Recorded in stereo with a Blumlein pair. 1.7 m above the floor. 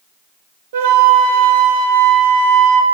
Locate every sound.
0.7 s a flute: 55° right, 0.7 m